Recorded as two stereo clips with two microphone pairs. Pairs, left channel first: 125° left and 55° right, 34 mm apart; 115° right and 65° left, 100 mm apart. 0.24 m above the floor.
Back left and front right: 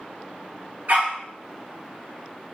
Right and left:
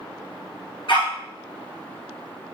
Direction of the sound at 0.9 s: 85° right.